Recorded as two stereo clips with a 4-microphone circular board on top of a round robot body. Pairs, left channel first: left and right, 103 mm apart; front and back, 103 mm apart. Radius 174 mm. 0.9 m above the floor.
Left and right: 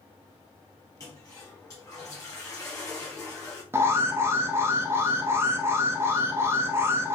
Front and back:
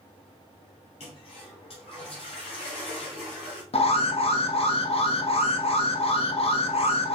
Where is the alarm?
25° right, 0.8 m.